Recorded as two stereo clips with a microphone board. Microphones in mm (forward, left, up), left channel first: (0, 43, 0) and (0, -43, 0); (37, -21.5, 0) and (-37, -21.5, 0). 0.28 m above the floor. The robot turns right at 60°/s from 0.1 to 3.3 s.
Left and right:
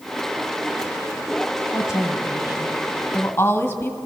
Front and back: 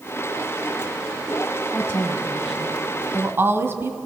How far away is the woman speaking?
About 2.0 m.